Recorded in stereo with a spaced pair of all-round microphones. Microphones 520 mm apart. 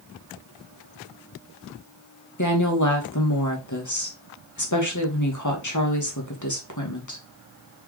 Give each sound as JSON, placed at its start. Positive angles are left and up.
{"t": 2.4, "sound": "a woman speaking", "side_deg": 35, "distance_m": 2.5}